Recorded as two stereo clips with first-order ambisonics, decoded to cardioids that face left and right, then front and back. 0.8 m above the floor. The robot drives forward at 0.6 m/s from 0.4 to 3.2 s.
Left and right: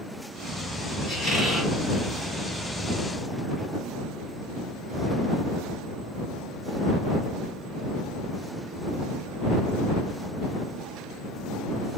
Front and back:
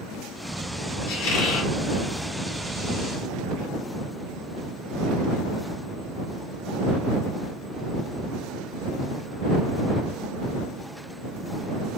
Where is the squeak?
10° left, 1.7 m; by 1.7 s 15° left, 1.3 m.